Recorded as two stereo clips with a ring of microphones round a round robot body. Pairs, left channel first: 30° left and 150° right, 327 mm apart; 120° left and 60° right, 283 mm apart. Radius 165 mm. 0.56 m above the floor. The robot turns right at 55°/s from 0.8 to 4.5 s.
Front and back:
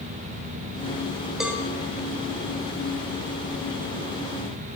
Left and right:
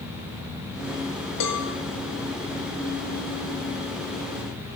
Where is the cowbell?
120° left, 1.4 m; by 1.6 s 135° left, 1.4 m.